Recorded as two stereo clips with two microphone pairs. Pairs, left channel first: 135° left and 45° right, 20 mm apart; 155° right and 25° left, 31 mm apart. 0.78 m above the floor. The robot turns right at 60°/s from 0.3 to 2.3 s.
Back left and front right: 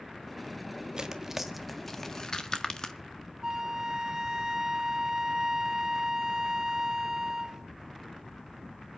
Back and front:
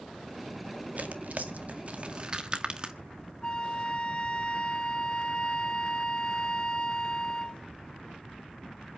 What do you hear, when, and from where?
1.0 s tearing paper: straight ahead, 1.6 m; by 3.0 s 80° left, 1.6 m
3.4 s a flute: 105° right, 1.3 m